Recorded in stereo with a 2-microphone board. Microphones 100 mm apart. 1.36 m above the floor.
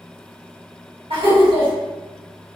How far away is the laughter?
About 1.9 m.